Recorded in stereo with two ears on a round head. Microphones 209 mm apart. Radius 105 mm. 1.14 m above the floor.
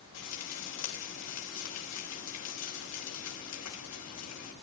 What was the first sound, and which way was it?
Frying, 90° left.